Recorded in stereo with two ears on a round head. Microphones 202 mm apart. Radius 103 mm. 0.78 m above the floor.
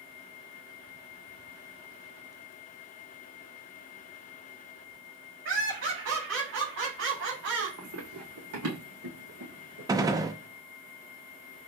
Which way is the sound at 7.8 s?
75° right (ahead or behind).